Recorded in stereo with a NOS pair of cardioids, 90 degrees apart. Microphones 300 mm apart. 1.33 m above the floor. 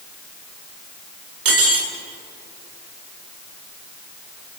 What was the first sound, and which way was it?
Cutlery clinking, 45° right.